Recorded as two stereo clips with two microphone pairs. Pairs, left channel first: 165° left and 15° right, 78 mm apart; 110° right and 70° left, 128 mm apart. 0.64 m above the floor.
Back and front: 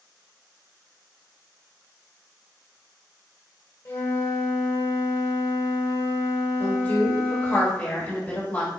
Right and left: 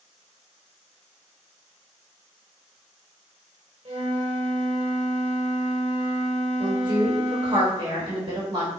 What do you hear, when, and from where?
3.9 s a flute: 115° left, 1.3 m
6.6 s a woman speaking: 110° left, 1.5 m